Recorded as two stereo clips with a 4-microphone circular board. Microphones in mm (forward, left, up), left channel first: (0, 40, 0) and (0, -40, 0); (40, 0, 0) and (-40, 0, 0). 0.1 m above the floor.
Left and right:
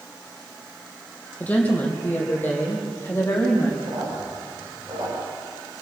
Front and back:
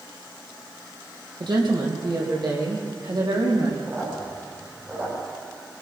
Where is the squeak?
115° right, 7 m.